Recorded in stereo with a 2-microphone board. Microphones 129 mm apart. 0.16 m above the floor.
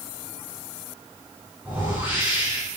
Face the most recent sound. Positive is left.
turn(degrees=-15)  # may be behind; listen again after turning